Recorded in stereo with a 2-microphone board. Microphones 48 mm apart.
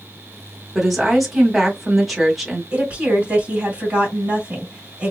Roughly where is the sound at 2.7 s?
Right.